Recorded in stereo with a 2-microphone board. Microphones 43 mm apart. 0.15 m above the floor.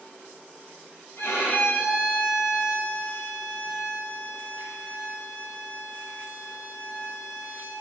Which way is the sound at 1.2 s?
65° left (ahead or behind).